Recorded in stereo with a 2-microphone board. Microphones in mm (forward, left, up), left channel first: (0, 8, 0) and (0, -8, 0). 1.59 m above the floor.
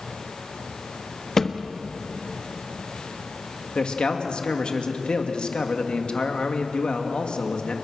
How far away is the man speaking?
About 2.5 m.